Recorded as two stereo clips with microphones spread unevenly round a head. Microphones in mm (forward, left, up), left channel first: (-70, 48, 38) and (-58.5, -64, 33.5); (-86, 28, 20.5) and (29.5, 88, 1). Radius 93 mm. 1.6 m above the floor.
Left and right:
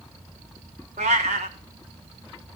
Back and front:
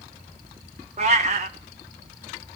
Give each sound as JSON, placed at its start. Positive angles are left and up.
{"t": 1.0, "sound": "a cat meowing", "azimuth_deg": -30, "distance_m": 1.7}